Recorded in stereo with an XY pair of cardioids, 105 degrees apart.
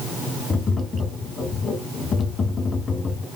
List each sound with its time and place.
0.5 s tapping: 40° left, 1.3 m